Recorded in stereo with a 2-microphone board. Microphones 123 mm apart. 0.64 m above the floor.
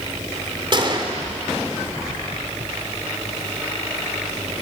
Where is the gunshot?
40° right (ahead or behind), 2.5 m.